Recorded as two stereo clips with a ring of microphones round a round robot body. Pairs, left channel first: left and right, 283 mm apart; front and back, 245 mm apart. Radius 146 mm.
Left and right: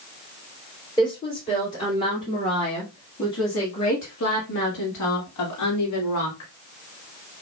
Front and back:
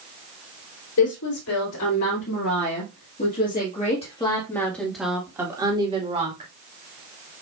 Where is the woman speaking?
20° left, 3.5 m; by 6.5 s 125° left, 2.5 m.